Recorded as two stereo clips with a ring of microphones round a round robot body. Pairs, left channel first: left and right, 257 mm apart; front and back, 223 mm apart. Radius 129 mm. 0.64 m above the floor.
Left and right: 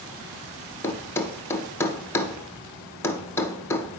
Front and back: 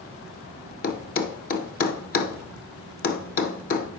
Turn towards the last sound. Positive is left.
turn(degrees=15)